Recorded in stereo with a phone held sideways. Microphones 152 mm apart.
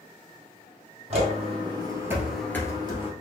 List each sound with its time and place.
1.1 s footsteps: 45° right (ahead or behind), 2.5 m; by 3.1 s 40° left (ahead or behind), 1.6 m